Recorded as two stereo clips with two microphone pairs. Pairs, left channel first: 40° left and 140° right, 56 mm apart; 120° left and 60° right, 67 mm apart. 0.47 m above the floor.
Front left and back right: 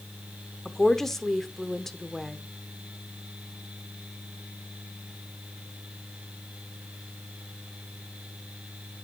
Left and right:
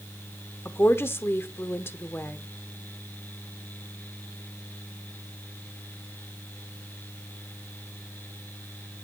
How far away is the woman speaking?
About 0.8 m.